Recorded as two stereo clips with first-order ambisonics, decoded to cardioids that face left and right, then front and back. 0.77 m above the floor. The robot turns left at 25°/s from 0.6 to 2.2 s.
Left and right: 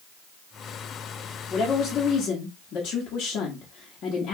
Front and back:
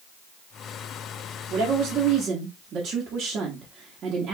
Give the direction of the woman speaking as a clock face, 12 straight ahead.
7 o'clock.